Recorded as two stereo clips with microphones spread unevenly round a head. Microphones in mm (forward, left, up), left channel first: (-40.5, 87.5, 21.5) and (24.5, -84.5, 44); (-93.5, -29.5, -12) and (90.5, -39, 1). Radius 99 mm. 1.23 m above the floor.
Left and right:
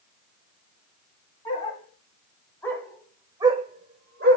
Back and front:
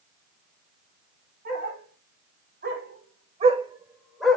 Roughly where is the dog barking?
Ahead left.